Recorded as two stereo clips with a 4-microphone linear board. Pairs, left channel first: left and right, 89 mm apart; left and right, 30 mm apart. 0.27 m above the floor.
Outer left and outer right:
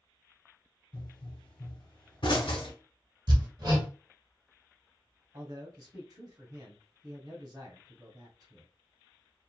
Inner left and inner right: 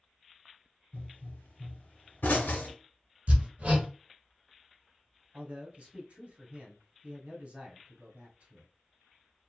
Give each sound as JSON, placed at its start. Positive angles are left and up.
{"t": 0.9, "sound": "a pop", "side_deg": 65, "distance_m": 1.0}
{"t": 3.3, "sound": "hammering", "side_deg": -50, "distance_m": 1.3}
{"t": 5.3, "sound": "a man speaking", "side_deg": -45, "distance_m": 1.4}